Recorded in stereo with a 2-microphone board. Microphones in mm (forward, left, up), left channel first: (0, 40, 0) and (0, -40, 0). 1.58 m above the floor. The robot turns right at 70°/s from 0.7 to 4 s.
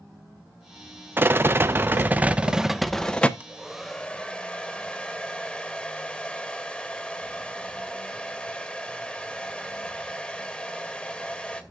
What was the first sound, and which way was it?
A rattle, 115° right.